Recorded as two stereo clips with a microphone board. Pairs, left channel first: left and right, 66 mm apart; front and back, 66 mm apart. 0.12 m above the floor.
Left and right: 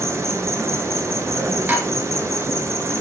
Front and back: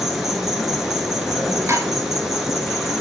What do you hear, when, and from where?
0.0 s an insect: 95° right, 1.2 m
1.7 s dishes clattering: 150° right, 1.6 m